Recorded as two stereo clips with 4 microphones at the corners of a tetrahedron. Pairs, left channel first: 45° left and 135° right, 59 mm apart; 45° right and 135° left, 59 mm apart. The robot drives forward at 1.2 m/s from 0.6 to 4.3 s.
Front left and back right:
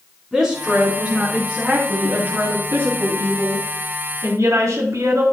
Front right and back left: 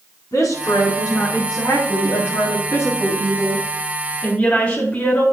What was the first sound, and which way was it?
A woman speaking, 50° right.